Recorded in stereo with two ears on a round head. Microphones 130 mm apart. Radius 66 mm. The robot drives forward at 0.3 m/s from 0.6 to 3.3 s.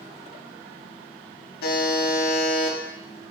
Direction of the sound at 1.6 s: 65° left (ahead or behind).